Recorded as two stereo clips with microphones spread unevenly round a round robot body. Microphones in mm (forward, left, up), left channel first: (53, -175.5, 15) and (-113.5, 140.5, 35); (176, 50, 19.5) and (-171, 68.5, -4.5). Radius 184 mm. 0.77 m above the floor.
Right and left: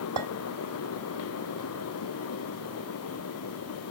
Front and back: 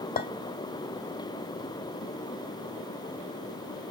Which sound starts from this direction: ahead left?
A clink, at 0.2 s.